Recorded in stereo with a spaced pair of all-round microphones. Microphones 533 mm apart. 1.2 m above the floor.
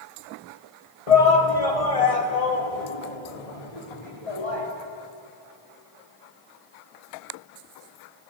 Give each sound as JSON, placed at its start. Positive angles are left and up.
{"t": 1.1, "sound": "a shout", "side_deg": 80, "distance_m": 2.0}